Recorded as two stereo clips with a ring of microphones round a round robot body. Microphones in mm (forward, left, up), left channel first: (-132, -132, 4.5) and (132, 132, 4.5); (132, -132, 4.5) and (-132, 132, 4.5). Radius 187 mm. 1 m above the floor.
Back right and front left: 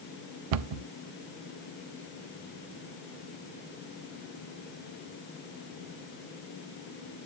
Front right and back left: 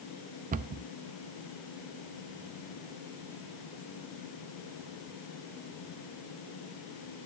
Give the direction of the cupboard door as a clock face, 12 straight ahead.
10 o'clock.